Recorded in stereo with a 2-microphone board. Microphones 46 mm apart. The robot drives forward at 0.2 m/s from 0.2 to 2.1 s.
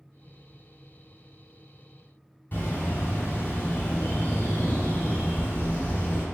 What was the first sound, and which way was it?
A bird, 40° left (ahead or behind).